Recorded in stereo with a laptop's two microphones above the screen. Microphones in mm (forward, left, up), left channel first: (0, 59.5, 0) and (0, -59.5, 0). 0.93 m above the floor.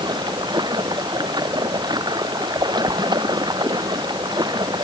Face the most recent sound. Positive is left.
turn(degrees=-40)  # may be behind; listen again after turning